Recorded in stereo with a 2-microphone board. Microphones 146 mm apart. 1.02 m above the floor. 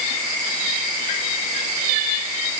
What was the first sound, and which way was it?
Only background noise.